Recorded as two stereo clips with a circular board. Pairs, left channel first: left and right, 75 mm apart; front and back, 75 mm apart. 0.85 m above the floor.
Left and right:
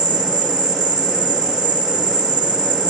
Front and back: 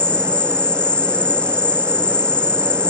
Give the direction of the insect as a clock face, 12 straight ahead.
2 o'clock.